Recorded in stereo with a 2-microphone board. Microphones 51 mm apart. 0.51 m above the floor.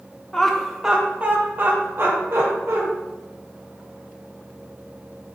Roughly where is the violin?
I don't hear a violin.